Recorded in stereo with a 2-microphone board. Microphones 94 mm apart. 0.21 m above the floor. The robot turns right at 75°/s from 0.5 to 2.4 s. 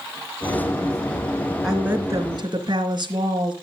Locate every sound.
1.6 s a woman speaking: 175° right, 3 m; by 3.5 s 120° right, 3 m